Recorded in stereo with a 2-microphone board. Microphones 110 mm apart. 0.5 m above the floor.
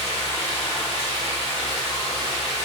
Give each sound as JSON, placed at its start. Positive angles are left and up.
{"t": 0.0, "sound": "running water", "side_deg": 60, "distance_m": 1.5}